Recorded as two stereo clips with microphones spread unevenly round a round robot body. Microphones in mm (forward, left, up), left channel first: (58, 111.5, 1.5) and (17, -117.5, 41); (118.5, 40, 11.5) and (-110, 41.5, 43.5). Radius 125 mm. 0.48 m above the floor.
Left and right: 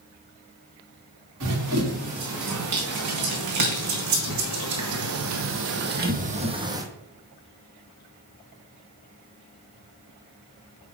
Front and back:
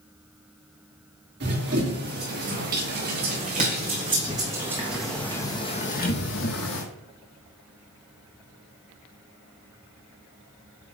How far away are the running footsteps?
About 3.5 m.